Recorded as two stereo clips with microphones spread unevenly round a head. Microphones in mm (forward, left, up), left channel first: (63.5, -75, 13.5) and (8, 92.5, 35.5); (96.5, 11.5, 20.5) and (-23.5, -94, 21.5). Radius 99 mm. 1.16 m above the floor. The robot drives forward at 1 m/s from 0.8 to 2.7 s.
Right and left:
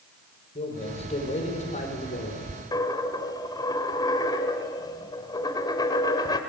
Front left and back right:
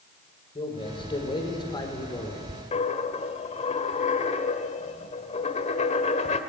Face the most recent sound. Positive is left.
turn(degrees=0)